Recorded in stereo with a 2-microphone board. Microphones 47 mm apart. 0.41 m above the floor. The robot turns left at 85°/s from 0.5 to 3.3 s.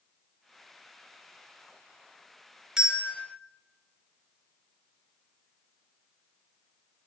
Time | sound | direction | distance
2.8 | a bell | 15° right (ahead or behind) | 1.4 m